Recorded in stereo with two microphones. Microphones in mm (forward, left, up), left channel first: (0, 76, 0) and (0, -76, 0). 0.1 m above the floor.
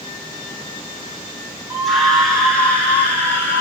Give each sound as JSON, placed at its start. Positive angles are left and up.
{"t": 1.7, "sound": "a scream", "side_deg": 0, "distance_m": 5.0}